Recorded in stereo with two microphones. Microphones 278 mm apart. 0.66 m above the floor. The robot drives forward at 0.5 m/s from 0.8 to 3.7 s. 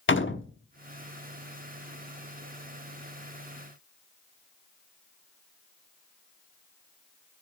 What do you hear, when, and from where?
0.1 s a door slam: 45° left (ahead or behind), 0.9 m